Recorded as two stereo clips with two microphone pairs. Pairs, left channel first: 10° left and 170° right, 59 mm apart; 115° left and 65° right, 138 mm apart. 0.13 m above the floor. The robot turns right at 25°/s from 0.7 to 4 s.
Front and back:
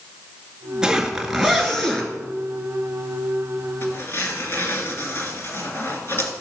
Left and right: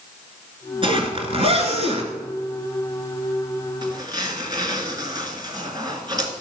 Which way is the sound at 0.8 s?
95° right.